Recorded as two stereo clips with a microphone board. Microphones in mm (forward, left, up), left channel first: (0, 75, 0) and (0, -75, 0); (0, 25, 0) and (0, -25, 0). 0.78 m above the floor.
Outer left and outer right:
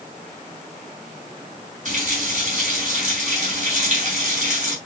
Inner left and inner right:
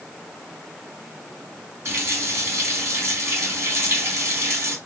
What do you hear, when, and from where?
1.9 s a running tap: 55° right (ahead or behind), 3 m